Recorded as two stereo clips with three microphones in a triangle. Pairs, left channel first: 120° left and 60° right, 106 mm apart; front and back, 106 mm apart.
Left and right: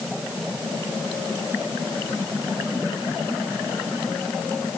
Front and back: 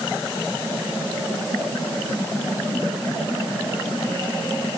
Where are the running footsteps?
No running footsteps in this recording.